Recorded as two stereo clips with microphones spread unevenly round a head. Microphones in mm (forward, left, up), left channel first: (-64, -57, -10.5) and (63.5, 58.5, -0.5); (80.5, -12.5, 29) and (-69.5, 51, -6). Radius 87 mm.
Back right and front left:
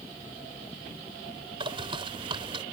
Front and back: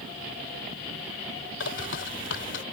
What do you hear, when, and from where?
1.6 s a bird: 20° right